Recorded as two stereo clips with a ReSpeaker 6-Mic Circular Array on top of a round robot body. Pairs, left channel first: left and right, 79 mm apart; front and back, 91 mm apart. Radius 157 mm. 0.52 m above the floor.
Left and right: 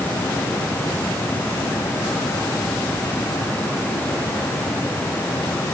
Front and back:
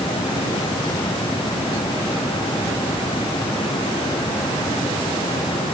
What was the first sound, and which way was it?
Only background noise.